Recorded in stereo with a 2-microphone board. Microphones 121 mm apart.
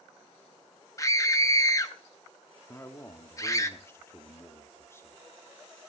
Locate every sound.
1.0 s a scream: 25° left (ahead or behind), 0.6 m
2.7 s a man speaking: 20° left (ahead or behind), 1.1 m